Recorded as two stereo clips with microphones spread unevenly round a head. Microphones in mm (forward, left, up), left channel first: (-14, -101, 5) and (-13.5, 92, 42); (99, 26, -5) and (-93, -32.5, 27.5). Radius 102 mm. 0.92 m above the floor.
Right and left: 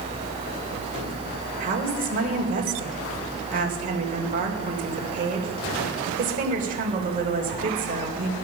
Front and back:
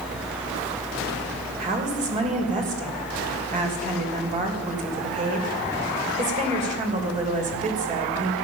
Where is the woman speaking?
140° left, 3 m.